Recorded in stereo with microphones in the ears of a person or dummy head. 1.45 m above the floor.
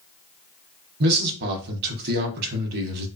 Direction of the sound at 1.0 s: 55° right (ahead or behind).